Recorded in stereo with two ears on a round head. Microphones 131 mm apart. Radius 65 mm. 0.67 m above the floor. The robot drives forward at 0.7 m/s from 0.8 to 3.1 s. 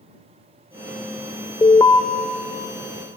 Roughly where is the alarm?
Centre.